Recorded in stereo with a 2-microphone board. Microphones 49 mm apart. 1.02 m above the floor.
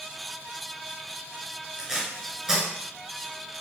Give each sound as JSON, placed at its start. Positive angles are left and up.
{"t": 1.8, "sound": "tape being pulled", "side_deg": -15, "distance_m": 5.5}